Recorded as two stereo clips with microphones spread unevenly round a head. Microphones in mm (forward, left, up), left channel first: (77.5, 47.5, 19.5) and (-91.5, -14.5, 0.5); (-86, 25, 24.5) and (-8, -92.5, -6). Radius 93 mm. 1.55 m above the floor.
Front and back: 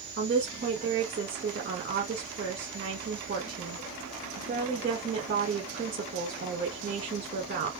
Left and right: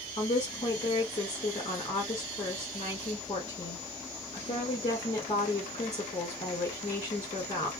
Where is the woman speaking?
170° left, 1.6 m.